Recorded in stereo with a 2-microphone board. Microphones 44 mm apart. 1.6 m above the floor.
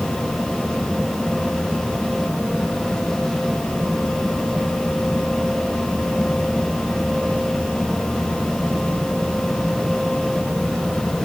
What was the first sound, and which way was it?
Only background noise.